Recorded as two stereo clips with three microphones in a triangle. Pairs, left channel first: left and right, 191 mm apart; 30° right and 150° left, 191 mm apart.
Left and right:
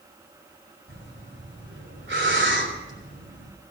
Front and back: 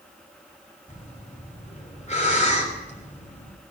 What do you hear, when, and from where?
0.9 s breathing: 85° right, 3.5 m